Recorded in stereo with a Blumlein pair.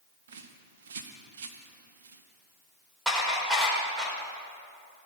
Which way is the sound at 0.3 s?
60° right.